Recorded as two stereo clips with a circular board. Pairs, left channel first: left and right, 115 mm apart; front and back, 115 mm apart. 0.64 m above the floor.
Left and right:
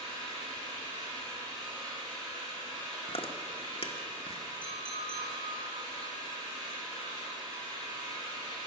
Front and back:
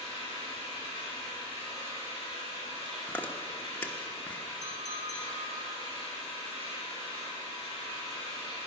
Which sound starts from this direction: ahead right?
An engine running, at 0.0 s.